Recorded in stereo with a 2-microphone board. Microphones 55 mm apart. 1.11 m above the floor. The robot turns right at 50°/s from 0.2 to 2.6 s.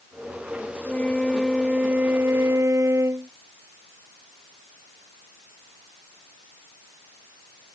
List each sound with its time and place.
0.8 s a flute: 150° left; by 3.3 s 120° right